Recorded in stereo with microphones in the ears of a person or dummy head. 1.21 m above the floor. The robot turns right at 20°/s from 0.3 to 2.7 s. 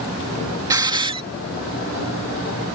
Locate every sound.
0.7 s a hiss: 20° right (ahead or behind); by 1.2 s 30° right (ahead or behind)